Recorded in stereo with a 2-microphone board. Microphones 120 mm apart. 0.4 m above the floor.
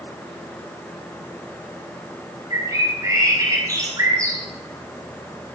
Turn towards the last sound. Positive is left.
turn(degrees=-25)  # may be behind; listen again after turning